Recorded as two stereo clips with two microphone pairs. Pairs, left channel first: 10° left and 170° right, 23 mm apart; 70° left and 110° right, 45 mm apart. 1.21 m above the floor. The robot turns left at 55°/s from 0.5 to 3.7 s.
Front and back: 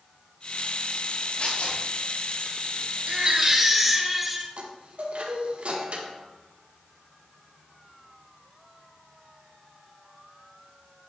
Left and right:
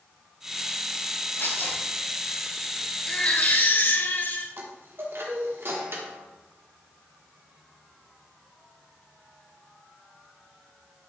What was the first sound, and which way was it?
Tearing paper, 45° left.